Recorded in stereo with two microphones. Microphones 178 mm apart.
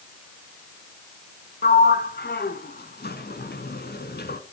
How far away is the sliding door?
About 0.9 m.